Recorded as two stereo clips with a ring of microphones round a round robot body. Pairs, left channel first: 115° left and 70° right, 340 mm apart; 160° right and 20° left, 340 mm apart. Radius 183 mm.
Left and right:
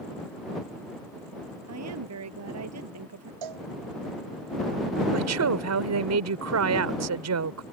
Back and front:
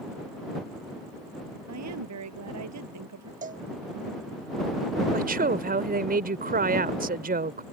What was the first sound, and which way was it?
A woman speaking, 20° right.